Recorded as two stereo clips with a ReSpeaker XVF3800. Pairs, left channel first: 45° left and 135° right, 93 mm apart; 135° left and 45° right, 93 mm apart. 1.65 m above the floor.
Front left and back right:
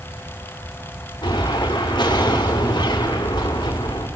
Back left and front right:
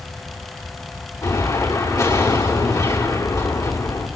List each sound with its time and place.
1.2 s an explosion: 85° left, 5 m